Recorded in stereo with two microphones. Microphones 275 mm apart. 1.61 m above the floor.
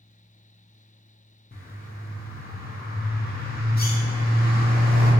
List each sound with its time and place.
1.5 s a bird: 35° left (ahead or behind), 0.5 m